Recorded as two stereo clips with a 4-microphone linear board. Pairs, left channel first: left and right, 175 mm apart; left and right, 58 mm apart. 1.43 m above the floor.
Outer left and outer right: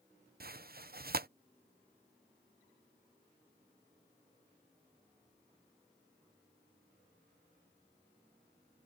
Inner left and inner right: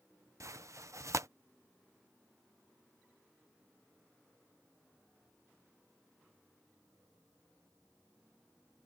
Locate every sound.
0.4 s tearing paper: 60° right (ahead or behind)